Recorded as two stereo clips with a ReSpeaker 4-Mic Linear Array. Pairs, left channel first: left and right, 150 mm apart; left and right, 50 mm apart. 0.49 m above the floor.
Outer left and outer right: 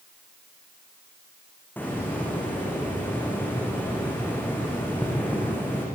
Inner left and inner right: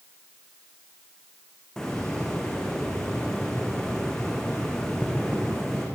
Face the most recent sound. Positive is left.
turn(degrees=10)  # may be behind; listen again after turning